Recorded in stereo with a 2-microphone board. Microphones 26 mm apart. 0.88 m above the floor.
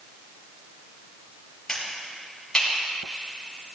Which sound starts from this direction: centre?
A finger snap, at 1.7 s.